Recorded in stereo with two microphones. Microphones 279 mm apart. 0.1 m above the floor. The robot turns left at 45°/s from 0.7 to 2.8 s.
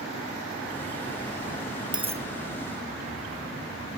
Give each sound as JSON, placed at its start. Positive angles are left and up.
{"t": 1.9, "sound": "a dropped coin", "side_deg": -15, "distance_m": 0.9}